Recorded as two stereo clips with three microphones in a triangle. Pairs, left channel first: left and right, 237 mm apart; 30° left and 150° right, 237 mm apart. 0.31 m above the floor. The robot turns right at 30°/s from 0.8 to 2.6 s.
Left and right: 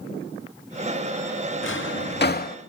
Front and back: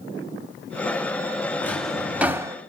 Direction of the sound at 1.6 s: 110° left.